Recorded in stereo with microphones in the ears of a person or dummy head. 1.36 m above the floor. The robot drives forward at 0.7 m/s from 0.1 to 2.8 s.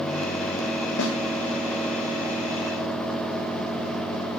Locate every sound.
1.0 s a snare drum: 70° left (ahead or behind), 3 m; by 1.1 s 65° left (ahead or behind), 3 m